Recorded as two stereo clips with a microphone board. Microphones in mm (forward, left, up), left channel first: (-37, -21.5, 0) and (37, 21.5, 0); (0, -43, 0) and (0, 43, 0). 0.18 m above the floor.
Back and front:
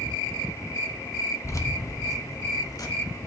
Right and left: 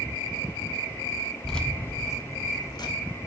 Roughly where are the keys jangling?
Behind.